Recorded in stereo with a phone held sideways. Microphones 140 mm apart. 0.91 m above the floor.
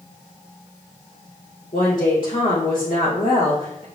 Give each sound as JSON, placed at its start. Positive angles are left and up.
{"t": 1.7, "sound": "a woman speaking", "side_deg": 75, "distance_m": 2.0}